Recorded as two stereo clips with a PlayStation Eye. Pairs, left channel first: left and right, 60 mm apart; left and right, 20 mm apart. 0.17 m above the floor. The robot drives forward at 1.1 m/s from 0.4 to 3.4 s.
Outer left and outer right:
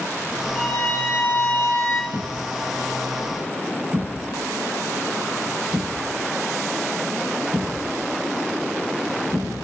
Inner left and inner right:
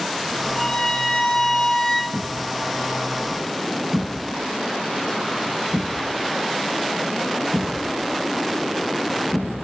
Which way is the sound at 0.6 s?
30° left (ahead or behind).